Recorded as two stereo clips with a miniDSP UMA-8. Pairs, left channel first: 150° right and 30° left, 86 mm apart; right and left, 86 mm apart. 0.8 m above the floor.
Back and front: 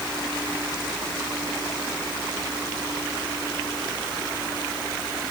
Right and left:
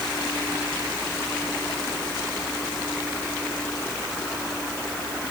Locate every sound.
Only background noise.